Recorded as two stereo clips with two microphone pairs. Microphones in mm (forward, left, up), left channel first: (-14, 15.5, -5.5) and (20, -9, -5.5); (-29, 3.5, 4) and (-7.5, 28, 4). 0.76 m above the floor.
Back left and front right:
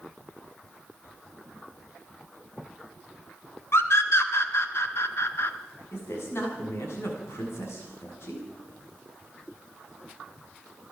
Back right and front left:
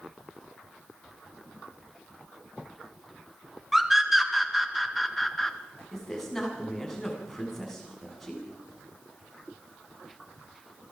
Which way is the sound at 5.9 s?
140° left.